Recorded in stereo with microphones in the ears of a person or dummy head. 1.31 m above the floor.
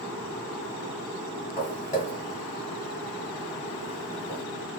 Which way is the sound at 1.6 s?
25° left (ahead or behind).